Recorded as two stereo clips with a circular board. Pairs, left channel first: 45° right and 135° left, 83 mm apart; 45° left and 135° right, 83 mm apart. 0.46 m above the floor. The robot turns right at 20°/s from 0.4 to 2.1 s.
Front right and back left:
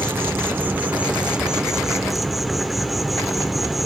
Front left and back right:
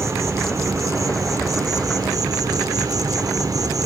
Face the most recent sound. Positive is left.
turn(degrees=-140)